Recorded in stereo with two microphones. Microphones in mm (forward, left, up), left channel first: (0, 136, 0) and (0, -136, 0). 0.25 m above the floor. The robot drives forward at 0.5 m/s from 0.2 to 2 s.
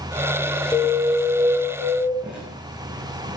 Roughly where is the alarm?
Centre.